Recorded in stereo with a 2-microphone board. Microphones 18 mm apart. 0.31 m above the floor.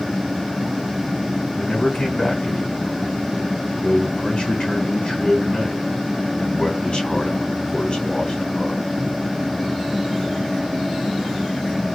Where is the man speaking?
45° left (ahead or behind), 3 m.